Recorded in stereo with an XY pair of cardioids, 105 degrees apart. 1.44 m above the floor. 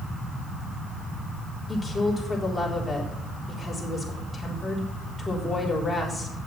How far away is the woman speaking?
About 4 m.